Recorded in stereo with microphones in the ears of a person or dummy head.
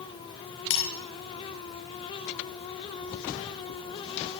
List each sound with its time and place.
0.7 s breaking glass: 65° left (ahead or behind), 8 m